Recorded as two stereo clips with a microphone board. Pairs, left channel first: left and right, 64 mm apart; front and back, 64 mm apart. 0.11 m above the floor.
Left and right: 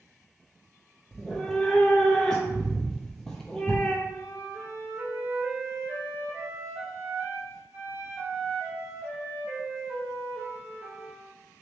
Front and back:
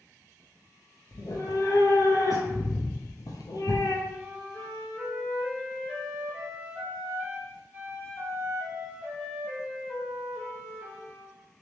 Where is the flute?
120° right, 2.0 m.